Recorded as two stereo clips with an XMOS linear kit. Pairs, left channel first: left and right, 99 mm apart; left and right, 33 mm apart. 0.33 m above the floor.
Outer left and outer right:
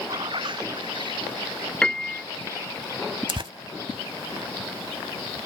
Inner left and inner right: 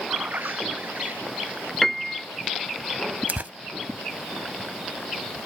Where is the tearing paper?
60° right (ahead or behind).